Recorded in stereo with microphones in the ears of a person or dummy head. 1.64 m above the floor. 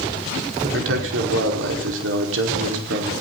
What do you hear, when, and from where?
0.6 s a man speaking: 80° right, 5 m